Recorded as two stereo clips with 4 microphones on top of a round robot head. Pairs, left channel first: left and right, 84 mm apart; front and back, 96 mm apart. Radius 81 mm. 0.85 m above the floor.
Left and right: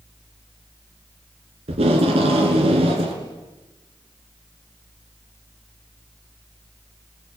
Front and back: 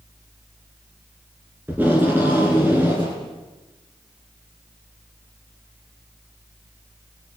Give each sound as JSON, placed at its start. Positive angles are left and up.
{"t": 1.7, "sound": "tape being pulled", "azimuth_deg": -100, "distance_m": 3.0}